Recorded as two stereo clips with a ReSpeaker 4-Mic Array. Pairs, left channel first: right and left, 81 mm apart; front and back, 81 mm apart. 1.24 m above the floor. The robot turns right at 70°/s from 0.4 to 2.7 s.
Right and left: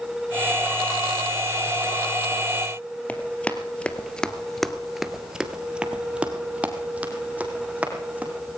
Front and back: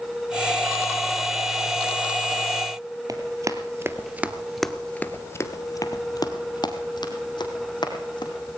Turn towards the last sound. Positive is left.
turn(degrees=20)